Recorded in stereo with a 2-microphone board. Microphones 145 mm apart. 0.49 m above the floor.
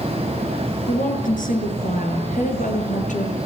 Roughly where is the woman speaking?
Left.